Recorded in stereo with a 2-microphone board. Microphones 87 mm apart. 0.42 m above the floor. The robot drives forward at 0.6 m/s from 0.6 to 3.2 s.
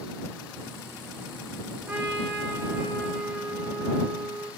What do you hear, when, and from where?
1.9 s a trumpet: 25° right (ahead or behind), 3.5 m; by 4.5 s 20° right (ahead or behind), 4 m